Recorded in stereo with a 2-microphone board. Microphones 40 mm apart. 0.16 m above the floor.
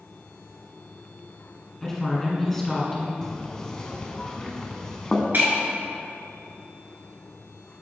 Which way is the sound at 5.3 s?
55° right (ahead or behind).